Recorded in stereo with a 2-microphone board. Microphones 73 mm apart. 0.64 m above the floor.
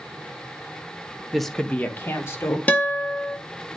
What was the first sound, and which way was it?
A woman speaking, 5° right (ahead or behind).